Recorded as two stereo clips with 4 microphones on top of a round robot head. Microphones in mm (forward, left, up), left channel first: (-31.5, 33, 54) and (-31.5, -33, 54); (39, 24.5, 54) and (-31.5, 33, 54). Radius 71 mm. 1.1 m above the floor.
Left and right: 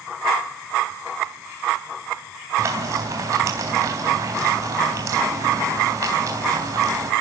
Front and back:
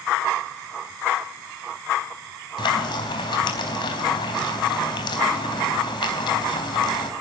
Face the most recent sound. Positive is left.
turn(degrees=-35)